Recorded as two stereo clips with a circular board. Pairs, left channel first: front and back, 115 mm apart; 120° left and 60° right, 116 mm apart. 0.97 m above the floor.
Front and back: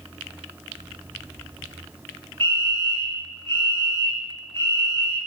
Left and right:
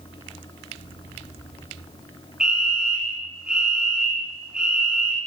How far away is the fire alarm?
About 4.5 m.